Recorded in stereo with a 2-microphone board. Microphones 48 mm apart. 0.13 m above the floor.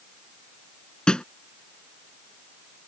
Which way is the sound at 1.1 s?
20° left (ahead or behind).